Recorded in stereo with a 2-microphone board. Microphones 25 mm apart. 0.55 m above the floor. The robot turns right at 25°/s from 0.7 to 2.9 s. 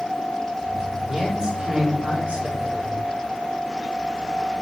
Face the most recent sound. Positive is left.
turn(degrees=-110)